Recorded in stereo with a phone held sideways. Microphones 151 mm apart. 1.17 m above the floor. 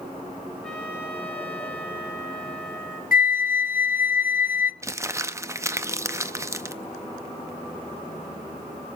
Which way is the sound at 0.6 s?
5° left (ahead or behind).